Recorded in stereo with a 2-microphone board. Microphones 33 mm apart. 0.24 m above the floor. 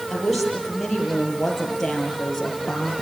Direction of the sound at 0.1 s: Centre (ahead or behind).